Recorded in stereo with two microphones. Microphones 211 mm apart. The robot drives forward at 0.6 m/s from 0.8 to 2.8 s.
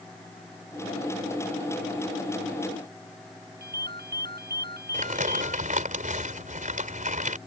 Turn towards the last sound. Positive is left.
turn(degrees=-35)  # may be behind; listen again after turning